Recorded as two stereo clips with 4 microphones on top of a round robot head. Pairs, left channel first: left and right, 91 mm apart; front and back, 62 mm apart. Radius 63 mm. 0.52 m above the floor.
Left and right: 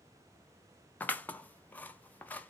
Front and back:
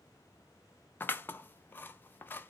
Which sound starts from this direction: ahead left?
Scissors, at 1.0 s.